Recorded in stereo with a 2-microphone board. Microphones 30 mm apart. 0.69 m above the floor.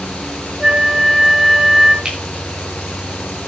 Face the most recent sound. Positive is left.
turn(degrees=-30)  # may be behind; listen again after turning